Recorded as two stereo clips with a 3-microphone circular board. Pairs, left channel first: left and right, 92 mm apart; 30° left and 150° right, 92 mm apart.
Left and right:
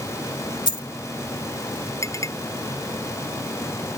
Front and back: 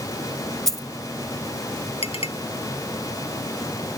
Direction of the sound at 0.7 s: 115° left.